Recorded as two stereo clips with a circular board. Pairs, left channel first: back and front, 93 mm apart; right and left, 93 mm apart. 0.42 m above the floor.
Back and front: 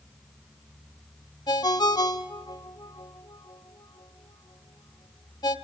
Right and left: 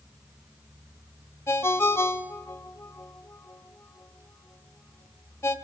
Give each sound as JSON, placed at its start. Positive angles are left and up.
{"t": 1.5, "sound": "a ringtone", "azimuth_deg": -150, "distance_m": 1.1}